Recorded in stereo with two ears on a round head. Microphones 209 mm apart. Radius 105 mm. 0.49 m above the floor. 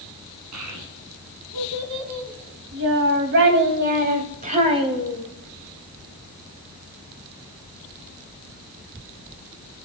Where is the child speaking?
80° right, 4.5 m; by 5.2 s 15° right (ahead or behind), 2.5 m.